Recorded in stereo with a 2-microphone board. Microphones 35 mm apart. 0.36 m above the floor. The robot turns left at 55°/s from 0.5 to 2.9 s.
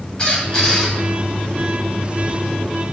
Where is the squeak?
20° left (ahead or behind), 1.1 m; by 0.9 s centre (ahead or behind), 1.1 m.